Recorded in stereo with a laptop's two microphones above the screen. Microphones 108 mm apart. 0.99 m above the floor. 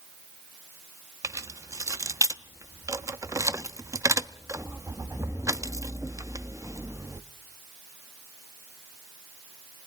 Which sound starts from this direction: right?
Keys jangling, at 1.2 s.